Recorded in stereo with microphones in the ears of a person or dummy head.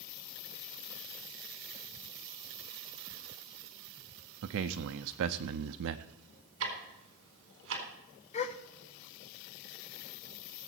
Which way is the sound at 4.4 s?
65° right (ahead or behind).